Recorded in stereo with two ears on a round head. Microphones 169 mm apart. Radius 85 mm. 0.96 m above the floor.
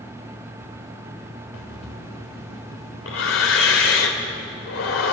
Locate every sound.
1.5 s breathing: 80° left, 3.5 m